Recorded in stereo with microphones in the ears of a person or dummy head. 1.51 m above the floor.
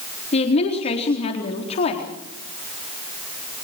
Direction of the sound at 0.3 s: 35° left (ahead or behind).